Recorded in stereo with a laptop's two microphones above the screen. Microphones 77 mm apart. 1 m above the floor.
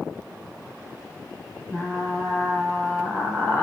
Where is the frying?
15° left (ahead or behind), 0.7 m.